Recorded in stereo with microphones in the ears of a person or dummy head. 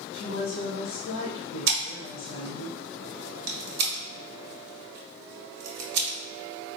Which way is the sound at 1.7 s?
65° right (ahead or behind).